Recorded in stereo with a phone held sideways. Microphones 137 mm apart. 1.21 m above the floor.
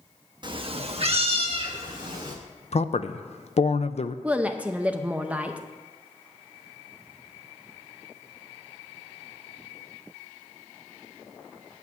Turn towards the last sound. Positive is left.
turn(degrees=-10)  # may be behind; listen again after turning